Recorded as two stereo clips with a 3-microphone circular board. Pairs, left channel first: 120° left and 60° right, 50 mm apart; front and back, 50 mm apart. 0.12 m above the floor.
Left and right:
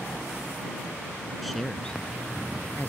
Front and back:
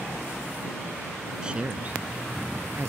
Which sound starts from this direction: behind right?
A man speaking, at 1.4 s.